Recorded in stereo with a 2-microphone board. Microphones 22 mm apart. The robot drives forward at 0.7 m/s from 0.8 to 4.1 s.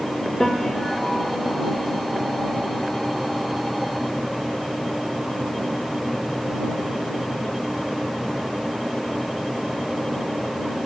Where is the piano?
20° left (ahead or behind), 3 m; by 1.6 s 25° left (ahead or behind), 2.5 m.